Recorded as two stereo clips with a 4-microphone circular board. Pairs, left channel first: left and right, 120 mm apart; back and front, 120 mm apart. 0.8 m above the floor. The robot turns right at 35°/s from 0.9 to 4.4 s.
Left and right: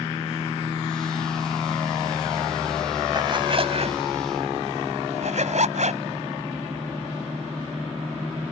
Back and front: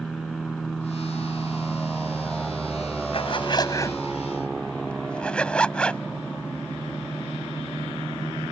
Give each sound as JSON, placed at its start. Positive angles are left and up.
{"t": 3.1, "sound": "a zipper", "azimuth_deg": -145}